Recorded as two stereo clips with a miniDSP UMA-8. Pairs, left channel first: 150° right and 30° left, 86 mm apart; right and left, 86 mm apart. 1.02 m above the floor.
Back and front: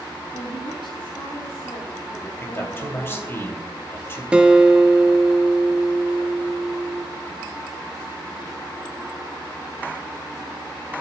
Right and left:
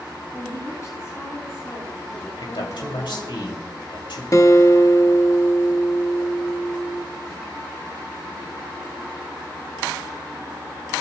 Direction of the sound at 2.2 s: 90° right.